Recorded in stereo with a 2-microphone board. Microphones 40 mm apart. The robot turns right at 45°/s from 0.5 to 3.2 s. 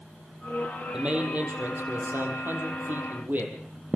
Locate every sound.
0.9 s a man speaking: 155° right, 4 m; by 3.5 s 50° right, 4 m